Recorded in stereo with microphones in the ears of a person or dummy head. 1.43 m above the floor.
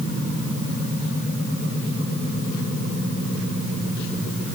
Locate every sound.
Only background noise.